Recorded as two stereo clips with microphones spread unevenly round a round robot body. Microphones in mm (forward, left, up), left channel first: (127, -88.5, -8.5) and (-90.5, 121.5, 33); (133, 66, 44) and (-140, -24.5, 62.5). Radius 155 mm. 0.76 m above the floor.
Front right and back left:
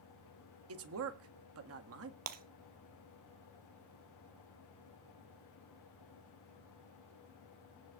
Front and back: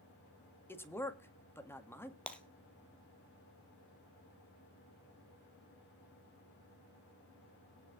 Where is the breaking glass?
105° left, 1.6 m.